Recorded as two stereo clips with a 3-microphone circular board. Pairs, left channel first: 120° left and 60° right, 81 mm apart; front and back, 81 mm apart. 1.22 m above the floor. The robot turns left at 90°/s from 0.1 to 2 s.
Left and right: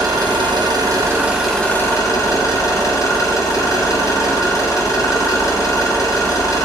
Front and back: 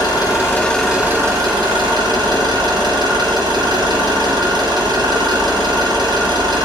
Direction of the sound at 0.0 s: 25° right.